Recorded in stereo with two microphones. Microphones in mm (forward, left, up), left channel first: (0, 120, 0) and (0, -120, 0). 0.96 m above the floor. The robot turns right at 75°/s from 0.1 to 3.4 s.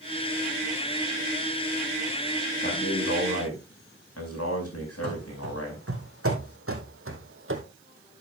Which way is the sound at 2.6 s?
40° left.